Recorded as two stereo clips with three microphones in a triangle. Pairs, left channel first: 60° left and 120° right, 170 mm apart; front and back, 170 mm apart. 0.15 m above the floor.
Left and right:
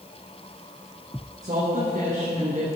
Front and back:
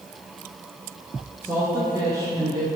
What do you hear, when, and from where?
1.4 s a woman speaking: 105° right, 2.0 m; by 2.7 s 125° right, 1.6 m